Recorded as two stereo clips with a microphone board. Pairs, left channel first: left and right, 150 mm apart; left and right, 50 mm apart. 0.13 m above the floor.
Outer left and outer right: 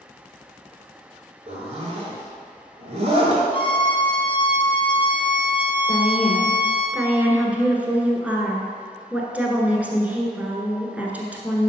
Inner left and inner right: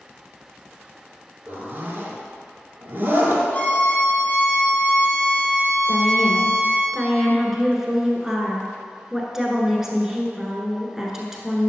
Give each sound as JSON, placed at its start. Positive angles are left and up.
{"t": 1.5, "sound": "a zipper", "side_deg": -45, "distance_m": 1.7}
{"t": 3.5, "sound": "a violin", "side_deg": 30, "distance_m": 1.6}
{"t": 5.9, "sound": "a woman speaking", "side_deg": -10, "distance_m": 1.3}